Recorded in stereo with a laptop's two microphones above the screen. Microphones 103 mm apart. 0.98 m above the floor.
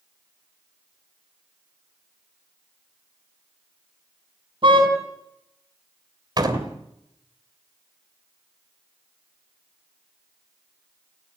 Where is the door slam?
40° right (ahead or behind), 3 m.